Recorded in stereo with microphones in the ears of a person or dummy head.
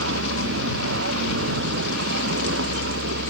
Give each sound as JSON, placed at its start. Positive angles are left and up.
{"t": 0.0, "sound": "a vehicle", "side_deg": -80}